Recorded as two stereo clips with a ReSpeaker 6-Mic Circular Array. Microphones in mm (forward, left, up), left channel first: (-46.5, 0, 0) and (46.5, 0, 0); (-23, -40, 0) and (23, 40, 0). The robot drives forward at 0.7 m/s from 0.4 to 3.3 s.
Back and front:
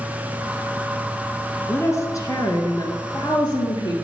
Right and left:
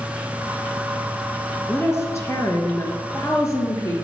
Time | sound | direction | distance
1.7 | a woman speaking | 150° right | 1.5 m